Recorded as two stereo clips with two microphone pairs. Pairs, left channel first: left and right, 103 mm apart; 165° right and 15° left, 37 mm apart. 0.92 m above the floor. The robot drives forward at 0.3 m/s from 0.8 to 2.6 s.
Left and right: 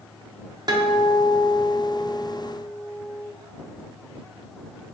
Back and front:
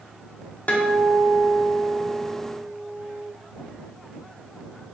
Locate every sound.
0.7 s a guitar: 130° right, 0.6 m; by 3.3 s 155° right, 1.0 m